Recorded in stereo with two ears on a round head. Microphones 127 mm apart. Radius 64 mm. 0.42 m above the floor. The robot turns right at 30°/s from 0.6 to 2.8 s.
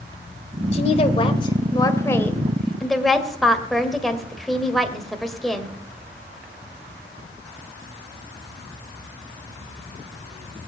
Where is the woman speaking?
115° left, 1.9 m; by 5.8 s straight behind, 1.9 m.